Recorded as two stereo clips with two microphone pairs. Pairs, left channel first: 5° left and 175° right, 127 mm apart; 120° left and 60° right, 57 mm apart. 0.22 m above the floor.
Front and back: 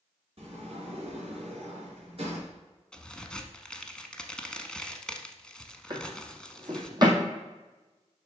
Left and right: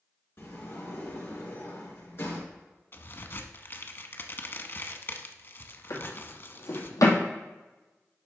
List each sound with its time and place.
0.4 s a sliding door: 155° left, 3.5 m
2.9 s a crack: 85° left, 0.8 m
5.9 s a drawer: 130° left, 1.8 m